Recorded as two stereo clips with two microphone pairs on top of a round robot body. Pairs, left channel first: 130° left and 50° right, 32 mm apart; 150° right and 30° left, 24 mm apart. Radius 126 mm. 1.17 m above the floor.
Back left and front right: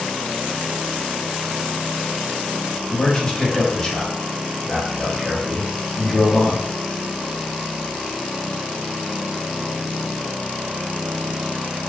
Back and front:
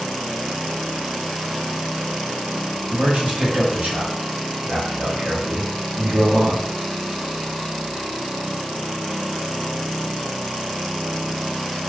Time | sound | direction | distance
2.9 | a man speaking | 60° left | 1.3 m